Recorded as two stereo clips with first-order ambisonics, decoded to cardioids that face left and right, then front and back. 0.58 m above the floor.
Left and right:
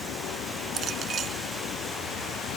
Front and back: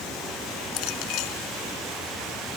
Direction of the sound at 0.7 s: 30° right.